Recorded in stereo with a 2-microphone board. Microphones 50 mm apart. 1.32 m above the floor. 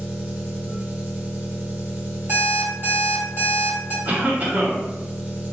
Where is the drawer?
I don't hear a drawer.